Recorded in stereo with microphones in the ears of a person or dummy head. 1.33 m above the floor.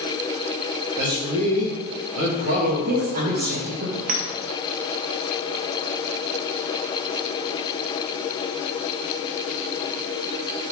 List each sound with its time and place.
1.0 s a man speaking: 80° right, 3 m
2.6 s a woman speaking: 50° right (ahead or behind), 1.1 m
4.1 s a clink: 45° right (ahead or behind), 1.0 m